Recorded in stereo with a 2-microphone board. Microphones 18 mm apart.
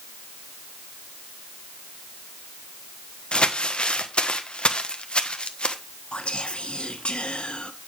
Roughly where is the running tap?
I don't hear a running tap.